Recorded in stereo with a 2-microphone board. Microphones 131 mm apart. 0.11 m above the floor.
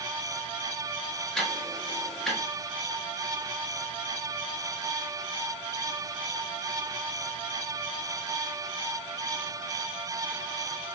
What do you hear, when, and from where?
1.4 s ticking: 5° left (ahead or behind), 1.1 m